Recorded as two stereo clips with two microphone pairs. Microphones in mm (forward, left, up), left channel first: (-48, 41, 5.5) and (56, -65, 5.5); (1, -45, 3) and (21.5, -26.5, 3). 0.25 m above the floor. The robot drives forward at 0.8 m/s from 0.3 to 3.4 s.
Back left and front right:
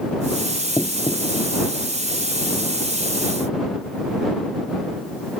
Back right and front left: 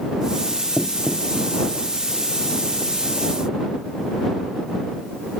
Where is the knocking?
60° left; by 1.5 s 70° left.